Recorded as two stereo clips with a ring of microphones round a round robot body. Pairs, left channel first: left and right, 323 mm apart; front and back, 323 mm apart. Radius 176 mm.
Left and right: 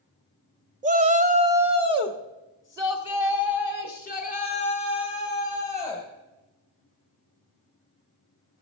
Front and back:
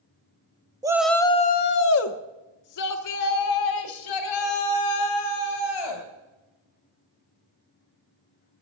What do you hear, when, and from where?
0.8 s a shout: 120° right, 0.6 m; by 6.0 s straight ahead, 3 m